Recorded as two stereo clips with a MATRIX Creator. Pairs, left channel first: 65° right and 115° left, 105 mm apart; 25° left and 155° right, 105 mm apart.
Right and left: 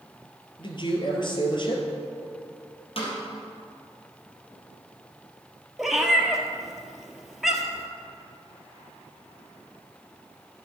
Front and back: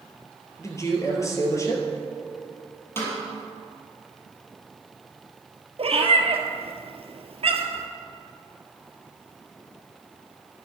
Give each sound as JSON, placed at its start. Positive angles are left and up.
{"t": 0.6, "sound": "a man speaking", "azimuth_deg": -35, "distance_m": 2.0}
{"t": 3.0, "sound": "a snare drum", "azimuth_deg": -45, "distance_m": 3.5}
{"t": 5.8, "sound": "a cat meowing", "azimuth_deg": -160, "distance_m": 1.4}